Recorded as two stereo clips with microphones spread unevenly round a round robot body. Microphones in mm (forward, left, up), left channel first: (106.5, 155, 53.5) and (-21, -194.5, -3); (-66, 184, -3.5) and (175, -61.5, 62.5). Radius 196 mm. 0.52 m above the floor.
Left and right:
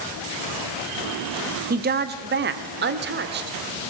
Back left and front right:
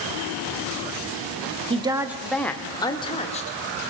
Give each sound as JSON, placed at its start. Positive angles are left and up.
{"t": 1.7, "sound": "a woman speaking", "azimuth_deg": -125, "distance_m": 1.2}